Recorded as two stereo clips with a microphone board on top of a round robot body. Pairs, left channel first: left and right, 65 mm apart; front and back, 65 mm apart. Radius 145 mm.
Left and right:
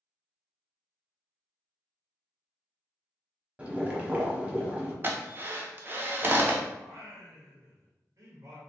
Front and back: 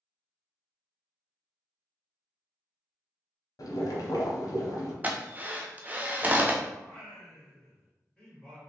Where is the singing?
75° right, 1.6 m.